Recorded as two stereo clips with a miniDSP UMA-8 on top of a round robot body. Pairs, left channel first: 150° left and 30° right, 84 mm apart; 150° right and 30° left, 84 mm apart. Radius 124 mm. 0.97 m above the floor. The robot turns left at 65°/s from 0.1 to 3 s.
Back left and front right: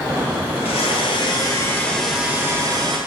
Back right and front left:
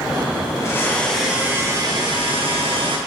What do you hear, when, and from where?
0.6 s a blender: 160° left, 1.4 m; by 3.0 s 5° left, 1.4 m